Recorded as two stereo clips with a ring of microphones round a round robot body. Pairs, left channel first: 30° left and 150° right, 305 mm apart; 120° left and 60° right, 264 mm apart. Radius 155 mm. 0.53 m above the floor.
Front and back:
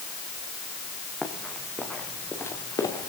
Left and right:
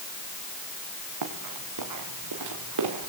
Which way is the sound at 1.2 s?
60° right.